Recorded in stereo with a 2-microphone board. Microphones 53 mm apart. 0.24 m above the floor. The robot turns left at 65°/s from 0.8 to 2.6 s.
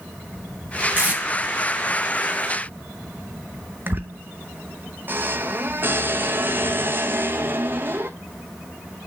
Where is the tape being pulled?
40° right (ahead or behind), 1.7 m; by 1.2 s 25° right (ahead or behind), 1.7 m.